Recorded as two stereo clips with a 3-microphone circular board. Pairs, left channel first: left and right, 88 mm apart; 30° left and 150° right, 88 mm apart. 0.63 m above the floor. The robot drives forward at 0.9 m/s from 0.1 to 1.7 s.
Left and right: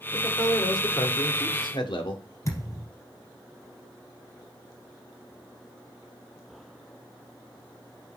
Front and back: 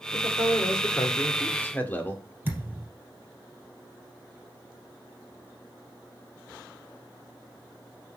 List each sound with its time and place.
0.1 s a man speaking: 45° left, 2.0 m; by 2.2 s 95° left, 1.5 m
2.5 s a thud: 145° left, 3 m